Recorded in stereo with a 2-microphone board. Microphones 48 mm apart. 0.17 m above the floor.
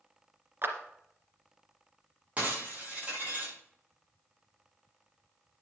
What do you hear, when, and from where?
0.6 s a clap: 45° right (ahead or behind), 2 m
2.4 s breaking glass: 30° right (ahead or behind), 7 m